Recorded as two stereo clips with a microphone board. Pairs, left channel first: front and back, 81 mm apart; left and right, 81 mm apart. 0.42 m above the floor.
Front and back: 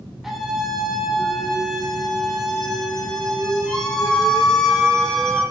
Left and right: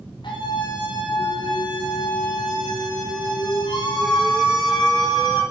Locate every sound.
0.2 s a scream: 95° left, 5 m; by 5.4 s 80° left, 7.5 m